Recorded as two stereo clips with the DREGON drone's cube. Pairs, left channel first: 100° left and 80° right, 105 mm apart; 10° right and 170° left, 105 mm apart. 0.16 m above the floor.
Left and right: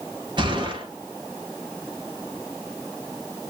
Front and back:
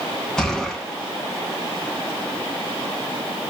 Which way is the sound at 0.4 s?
90° right.